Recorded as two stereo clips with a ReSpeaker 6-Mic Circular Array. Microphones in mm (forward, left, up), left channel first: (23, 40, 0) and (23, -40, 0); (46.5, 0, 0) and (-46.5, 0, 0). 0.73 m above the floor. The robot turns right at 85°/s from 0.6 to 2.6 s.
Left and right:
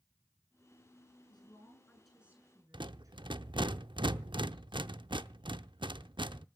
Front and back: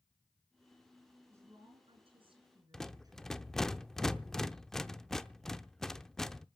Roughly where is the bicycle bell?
I don't hear a bicycle bell.